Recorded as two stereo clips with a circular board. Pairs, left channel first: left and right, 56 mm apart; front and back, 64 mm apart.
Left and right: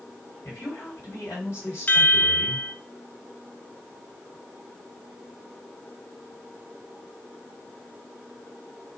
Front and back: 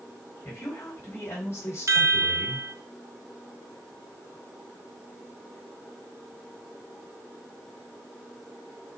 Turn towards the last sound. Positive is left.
turn(degrees=145)